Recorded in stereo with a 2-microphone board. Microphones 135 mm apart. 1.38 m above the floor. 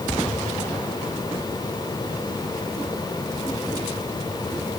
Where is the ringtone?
No ringtone in this recording.